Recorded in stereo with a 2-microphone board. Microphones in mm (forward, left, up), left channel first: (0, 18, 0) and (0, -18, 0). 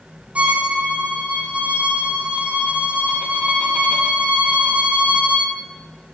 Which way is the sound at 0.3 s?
45° right (ahead or behind).